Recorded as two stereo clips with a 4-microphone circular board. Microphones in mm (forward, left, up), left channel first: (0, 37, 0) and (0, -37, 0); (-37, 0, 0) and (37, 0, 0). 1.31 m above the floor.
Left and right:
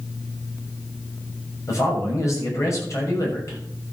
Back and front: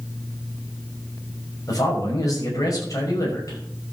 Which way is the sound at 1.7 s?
140° left.